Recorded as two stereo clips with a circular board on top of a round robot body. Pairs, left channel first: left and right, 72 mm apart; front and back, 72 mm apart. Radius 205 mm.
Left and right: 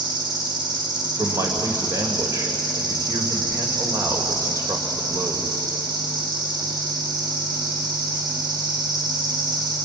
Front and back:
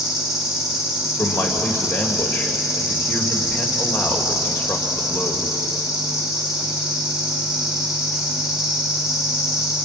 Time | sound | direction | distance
0.0 | an insect | 95° right | 4 m
1.2 | a man speaking | 55° right | 2.5 m